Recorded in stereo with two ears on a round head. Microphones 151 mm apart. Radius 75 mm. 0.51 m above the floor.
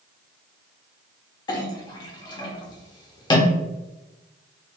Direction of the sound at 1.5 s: 25° left (ahead or behind).